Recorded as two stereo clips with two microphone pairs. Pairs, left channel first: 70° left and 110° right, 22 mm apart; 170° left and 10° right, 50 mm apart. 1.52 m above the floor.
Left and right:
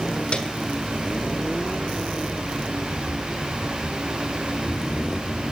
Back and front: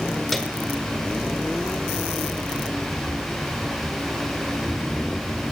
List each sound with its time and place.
0.3 s a piano: 80° left, 1.4 m